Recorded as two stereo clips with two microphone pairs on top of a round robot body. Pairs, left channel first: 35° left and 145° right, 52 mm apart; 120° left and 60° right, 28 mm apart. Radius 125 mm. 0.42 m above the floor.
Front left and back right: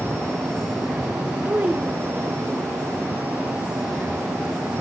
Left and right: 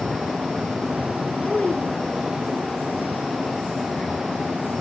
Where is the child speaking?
175° left, 1.5 m.